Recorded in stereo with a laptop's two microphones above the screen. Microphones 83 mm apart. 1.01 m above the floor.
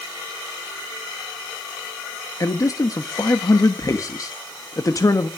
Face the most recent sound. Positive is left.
turn(degrees=40)  # may be behind; listen again after turning